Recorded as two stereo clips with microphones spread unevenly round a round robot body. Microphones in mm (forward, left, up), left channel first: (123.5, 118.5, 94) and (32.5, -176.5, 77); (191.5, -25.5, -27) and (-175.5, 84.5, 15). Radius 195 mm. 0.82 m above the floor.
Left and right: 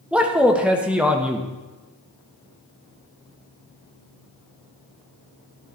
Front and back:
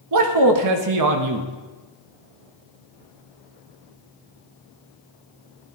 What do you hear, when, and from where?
0.1 s a man speaking: 170° left, 0.9 m